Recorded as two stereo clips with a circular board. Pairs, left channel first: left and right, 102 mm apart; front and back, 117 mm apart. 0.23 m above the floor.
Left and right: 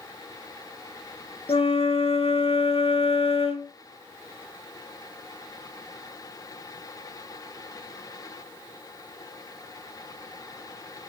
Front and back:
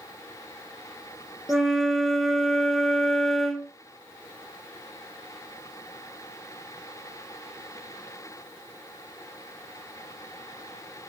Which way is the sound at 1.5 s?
90° left.